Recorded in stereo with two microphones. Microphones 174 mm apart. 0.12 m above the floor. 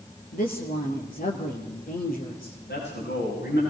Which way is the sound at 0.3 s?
55° left (ahead or behind).